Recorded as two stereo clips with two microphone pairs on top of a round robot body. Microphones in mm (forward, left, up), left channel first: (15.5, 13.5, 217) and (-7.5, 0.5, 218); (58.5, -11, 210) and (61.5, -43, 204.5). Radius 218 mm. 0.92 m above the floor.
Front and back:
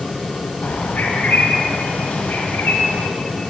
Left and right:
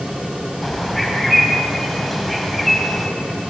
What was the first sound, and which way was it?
A bird, 10° left.